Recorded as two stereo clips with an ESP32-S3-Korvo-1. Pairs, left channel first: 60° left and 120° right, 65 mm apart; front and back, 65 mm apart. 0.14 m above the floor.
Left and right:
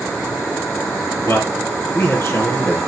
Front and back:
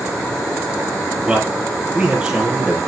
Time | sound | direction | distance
1.2 | a man speaking | 105° left | 4 m